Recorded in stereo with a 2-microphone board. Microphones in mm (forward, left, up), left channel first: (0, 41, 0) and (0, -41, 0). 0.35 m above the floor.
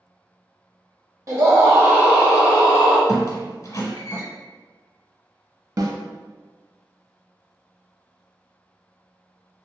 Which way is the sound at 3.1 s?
40° left (ahead or behind).